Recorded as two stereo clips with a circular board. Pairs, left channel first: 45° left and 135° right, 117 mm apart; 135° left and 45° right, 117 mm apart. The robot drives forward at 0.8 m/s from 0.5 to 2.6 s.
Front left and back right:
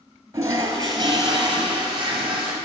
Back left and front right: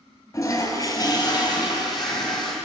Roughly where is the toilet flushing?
Behind.